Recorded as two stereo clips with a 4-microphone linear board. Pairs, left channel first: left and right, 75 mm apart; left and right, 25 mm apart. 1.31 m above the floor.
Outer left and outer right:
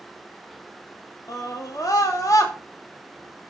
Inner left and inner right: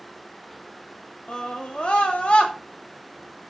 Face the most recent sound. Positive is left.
turn(degrees=50)  # may be behind; listen again after turning